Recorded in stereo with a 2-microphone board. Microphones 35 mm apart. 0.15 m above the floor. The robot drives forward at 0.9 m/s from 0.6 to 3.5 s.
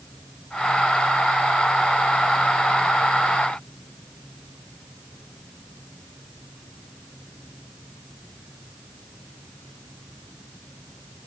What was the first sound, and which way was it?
Only background noise.